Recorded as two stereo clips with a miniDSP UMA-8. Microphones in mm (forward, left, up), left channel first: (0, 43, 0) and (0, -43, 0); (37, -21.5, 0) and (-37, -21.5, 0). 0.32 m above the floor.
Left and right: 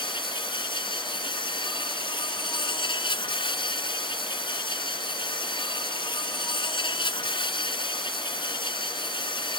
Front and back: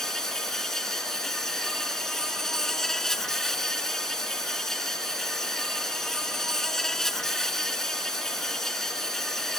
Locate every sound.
0.0 s an insect: 85° left